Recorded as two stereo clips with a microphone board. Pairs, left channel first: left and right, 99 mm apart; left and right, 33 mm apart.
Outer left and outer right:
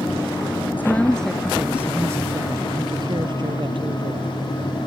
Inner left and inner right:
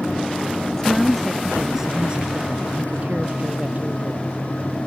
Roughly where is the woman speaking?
Centre.